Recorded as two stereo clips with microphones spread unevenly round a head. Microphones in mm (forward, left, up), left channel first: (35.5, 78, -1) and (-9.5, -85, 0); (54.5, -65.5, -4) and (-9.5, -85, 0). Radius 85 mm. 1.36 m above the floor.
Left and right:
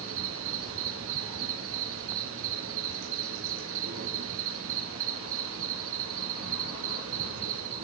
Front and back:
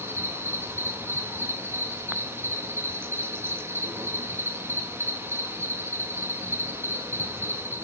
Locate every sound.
0.0 s an insect: 110° right, 2.5 m